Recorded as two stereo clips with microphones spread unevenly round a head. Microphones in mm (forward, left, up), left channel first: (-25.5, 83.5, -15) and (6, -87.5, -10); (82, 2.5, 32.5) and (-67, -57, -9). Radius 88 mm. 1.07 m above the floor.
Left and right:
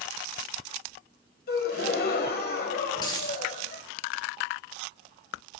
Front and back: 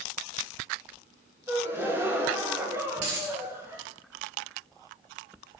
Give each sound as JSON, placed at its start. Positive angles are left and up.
{"t": 1.5, "sound": "a gasp", "azimuth_deg": 115, "distance_m": 1.2}
{"t": 3.0, "sound": "a dropped coin", "azimuth_deg": 170, "distance_m": 3.5}